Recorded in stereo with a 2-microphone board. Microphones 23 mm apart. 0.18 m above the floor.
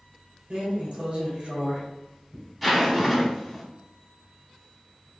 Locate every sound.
0.5 s a drawer: 50° right (ahead or behind), 1.9 m
2.6 s a zipper: 5° right (ahead or behind), 0.9 m